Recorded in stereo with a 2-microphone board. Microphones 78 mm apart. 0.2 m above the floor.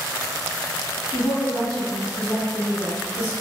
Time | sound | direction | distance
1.1 | a woman speaking | 20° left (ahead or behind) | 1.5 m